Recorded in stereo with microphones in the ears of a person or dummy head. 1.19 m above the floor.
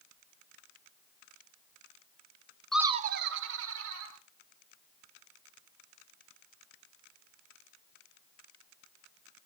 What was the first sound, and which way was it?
Laughter, 5° left (ahead or behind).